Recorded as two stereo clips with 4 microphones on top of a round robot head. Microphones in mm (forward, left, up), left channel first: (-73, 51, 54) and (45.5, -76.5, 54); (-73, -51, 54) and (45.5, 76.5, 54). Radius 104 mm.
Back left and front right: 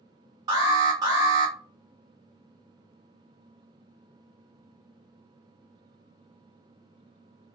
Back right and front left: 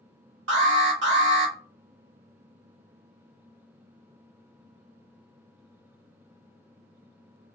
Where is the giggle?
No giggle in this recording.